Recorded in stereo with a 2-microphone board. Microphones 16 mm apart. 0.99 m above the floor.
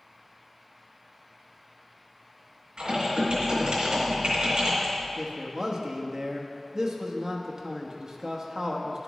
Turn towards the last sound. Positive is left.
turn(degrees=-35)  # may be behind; listen again after turning